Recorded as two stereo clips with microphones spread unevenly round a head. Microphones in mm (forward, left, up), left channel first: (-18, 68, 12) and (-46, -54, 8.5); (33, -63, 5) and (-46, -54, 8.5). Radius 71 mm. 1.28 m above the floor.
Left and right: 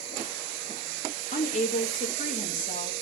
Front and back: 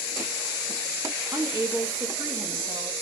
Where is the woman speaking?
100° left, 1.8 m.